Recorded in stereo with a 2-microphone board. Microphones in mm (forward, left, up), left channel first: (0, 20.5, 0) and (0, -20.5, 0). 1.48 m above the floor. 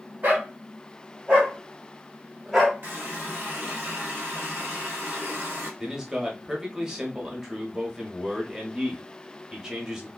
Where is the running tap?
55° right (ahead or behind), 2.5 m.